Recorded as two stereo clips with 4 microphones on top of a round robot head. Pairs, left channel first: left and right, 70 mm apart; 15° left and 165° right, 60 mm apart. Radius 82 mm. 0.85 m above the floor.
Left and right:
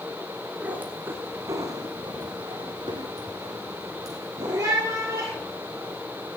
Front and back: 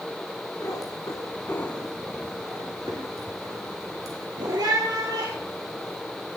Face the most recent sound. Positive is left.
turn(degrees=-150)